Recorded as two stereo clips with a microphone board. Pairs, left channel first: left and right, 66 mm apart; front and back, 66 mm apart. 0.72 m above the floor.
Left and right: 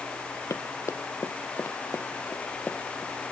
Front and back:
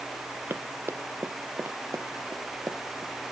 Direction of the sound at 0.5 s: 125° left.